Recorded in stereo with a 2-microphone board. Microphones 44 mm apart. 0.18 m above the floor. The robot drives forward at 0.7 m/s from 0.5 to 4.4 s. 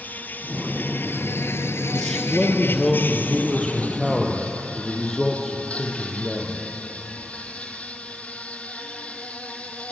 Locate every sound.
0.0 s an insect: 45° left (ahead or behind), 1.4 m; by 9.9 s 30° left (ahead or behind), 2 m
1.9 s a man speaking: 10° left (ahead or behind), 3.5 m